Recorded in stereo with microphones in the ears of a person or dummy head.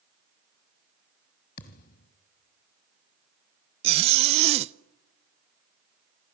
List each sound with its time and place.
1.6 s a thud: 55° left (ahead or behind), 2 m
3.8 s a zipper: 35° right (ahead or behind), 0.6 m